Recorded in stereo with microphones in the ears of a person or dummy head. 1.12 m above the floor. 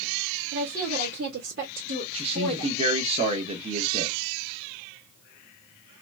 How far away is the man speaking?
About 0.9 m.